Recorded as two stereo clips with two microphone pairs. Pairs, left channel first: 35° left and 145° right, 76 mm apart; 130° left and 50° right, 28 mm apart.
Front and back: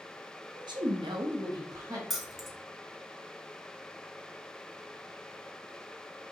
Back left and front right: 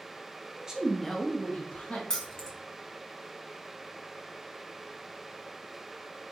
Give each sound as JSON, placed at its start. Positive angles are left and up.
{"t": 0.6, "sound": "a woman speaking", "azimuth_deg": -115, "distance_m": 0.7}
{"t": 2.1, "sound": "keys jangling", "azimuth_deg": 130, "distance_m": 0.5}